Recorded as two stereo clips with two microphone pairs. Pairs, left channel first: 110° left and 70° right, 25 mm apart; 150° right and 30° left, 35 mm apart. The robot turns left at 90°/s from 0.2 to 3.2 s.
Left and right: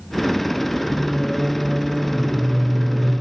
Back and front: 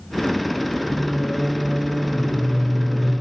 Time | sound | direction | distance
0.8 | singing | 15° right | 6.5 m